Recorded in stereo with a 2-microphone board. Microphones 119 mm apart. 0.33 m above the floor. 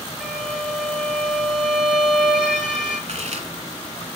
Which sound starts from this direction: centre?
A violin, at 0.2 s.